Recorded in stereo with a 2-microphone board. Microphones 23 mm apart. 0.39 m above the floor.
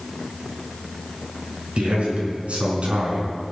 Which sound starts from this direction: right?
A man speaking, at 1.8 s.